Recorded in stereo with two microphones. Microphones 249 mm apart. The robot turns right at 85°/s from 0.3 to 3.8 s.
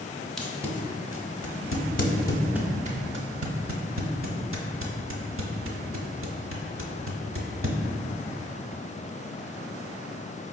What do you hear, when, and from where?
0.4 s tape being pulled: centre (ahead or behind), 0.5 m; by 7.8 s 55° right (ahead or behind), 0.5 m